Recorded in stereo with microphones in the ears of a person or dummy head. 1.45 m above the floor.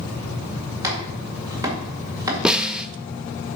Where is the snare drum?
5° right (ahead or behind), 0.6 m.